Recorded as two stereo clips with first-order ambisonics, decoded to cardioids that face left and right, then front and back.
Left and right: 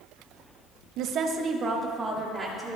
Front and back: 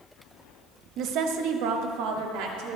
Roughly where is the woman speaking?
Behind right.